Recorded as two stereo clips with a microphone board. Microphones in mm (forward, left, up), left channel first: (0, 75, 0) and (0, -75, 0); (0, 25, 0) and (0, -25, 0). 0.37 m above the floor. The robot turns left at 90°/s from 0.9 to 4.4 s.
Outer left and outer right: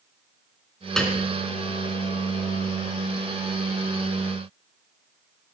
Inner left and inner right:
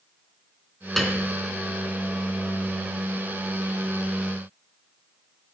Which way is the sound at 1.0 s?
5° left (ahead or behind).